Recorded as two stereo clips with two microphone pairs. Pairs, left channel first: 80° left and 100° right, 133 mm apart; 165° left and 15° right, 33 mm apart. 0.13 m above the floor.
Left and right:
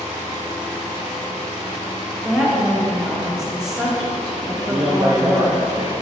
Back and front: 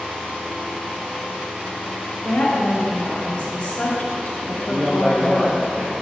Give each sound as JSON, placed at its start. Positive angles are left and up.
{"t": 2.2, "sound": "a woman speaking", "azimuth_deg": 175, "distance_m": 1.7}
{"t": 4.5, "sound": "a man speaking", "azimuth_deg": -40, "distance_m": 1.7}